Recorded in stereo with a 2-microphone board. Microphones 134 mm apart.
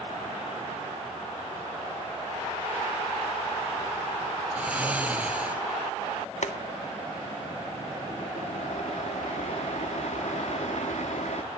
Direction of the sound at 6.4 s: 65° left (ahead or behind).